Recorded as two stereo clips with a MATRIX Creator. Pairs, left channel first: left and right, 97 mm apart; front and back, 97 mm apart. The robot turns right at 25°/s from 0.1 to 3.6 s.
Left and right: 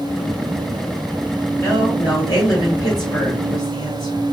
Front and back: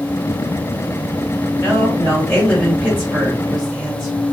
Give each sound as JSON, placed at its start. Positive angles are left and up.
{"t": 1.6, "sound": "a woman speaking", "azimuth_deg": 55, "distance_m": 1.6}